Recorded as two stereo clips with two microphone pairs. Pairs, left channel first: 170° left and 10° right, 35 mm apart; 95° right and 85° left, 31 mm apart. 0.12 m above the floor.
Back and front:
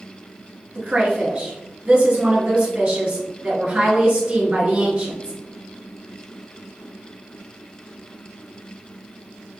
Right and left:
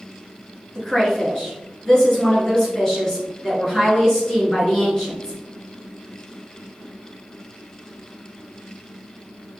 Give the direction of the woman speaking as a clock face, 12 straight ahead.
1 o'clock.